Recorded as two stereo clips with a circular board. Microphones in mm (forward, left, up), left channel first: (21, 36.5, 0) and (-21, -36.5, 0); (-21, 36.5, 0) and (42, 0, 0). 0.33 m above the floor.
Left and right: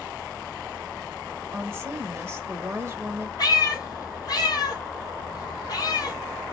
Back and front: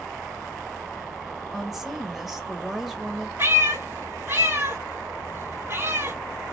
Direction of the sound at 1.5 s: 115° right.